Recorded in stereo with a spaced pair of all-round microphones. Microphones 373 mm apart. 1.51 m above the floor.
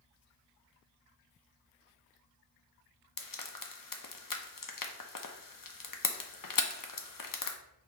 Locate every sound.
3.2 s frying: 60° left (ahead or behind), 0.6 m